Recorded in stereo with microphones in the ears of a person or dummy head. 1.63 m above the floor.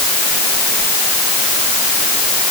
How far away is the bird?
I don't hear a bird.